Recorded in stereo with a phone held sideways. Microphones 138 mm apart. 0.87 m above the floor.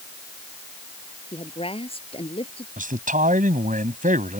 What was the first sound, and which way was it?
A woman speaking, 40° left (ahead or behind).